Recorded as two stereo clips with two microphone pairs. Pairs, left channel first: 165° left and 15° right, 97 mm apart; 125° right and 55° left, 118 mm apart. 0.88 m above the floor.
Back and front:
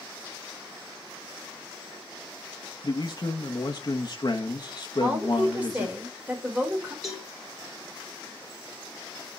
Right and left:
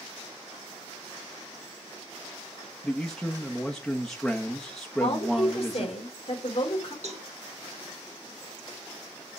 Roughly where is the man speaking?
Behind left.